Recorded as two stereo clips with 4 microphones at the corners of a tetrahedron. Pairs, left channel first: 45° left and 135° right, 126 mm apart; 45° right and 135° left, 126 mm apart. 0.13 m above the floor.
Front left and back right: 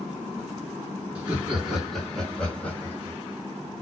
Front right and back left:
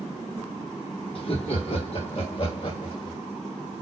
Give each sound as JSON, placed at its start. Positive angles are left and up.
{"t": 1.1, "sound": "laughter", "azimuth_deg": -60, "distance_m": 2.0}